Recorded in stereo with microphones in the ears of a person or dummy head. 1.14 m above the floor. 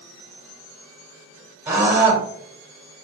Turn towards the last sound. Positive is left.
turn(degrees=-10)  # may be behind; listen again after turning